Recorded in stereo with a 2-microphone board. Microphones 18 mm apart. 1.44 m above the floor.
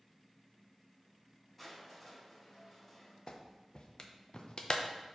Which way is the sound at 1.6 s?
10° left (ahead or behind).